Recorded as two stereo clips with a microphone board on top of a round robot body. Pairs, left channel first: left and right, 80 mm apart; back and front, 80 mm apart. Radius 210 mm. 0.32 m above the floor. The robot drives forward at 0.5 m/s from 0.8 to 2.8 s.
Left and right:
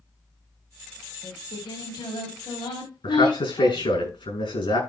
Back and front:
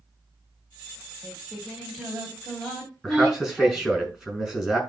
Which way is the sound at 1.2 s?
85° left.